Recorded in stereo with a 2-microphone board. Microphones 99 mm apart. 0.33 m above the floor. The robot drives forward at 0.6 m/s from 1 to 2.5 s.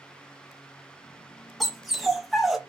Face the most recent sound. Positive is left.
turn(degrees=0)  # may be behind; listen again after turning